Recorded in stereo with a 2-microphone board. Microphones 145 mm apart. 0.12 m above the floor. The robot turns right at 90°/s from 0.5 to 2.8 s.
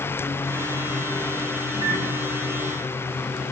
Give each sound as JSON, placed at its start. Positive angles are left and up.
{"t": 1.7, "sound": "a microwave", "azimuth_deg": 50, "distance_m": 2.5}